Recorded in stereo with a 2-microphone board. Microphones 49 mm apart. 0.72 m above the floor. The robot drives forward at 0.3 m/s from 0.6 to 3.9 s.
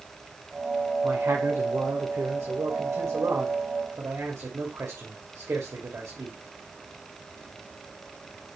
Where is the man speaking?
75° right (ahead or behind), 2.5 m; by 6.4 s 60° right (ahead or behind), 2.5 m.